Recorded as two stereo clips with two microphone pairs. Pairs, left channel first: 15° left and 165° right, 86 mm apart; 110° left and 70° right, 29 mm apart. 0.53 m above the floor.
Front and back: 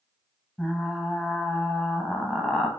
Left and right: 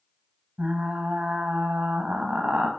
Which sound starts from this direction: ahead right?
Frying, at 0.6 s.